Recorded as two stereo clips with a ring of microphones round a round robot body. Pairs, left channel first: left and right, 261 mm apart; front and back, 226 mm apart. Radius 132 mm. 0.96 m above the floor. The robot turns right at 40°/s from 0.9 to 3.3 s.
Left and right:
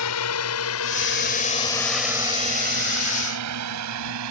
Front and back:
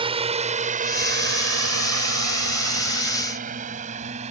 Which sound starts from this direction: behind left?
A drone, at 0.0 s.